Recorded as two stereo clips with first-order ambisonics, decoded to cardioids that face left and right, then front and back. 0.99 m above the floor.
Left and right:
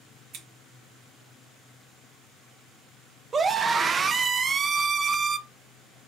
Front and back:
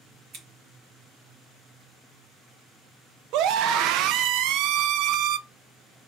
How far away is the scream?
About 0.6 m.